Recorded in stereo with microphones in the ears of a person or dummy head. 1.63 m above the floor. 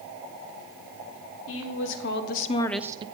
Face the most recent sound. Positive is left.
turn(degrees=-30)  # may be behind; listen again after turning